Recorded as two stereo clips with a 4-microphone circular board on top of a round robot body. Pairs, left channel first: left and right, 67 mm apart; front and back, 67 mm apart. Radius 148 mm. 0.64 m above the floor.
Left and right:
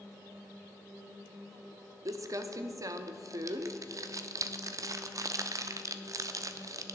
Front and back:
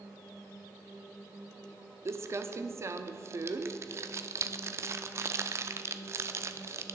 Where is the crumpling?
130° right, 0.5 m.